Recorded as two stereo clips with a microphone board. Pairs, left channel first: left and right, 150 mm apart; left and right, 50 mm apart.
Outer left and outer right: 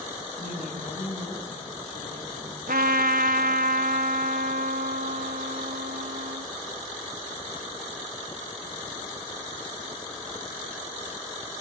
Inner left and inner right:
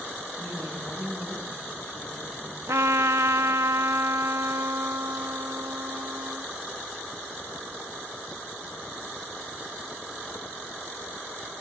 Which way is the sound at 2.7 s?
80° right.